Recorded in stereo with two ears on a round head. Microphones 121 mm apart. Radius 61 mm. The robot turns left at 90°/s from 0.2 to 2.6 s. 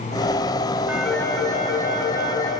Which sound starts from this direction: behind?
A phone ringing, at 0.9 s.